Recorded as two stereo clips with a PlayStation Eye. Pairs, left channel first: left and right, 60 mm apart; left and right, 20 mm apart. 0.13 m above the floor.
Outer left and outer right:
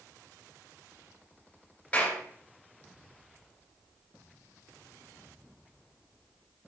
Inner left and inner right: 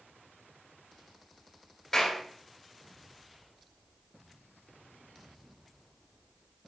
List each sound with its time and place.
1.9 s a clap: 25° left (ahead or behind), 2 m